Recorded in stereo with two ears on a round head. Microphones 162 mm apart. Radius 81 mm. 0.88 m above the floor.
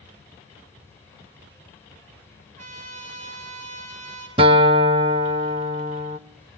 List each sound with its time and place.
2.6 s a trumpet: 40° right (ahead or behind), 9.5 m
4.4 s a guitar: 30° right (ahead or behind), 1.0 m